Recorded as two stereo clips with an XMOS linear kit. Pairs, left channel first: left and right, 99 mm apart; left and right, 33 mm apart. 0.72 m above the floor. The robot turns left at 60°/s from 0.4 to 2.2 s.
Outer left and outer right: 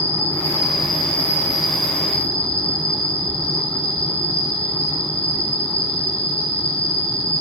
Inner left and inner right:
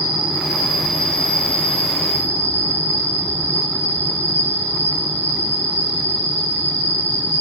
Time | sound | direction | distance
0.0 | an insect | 150° right | 2.5 m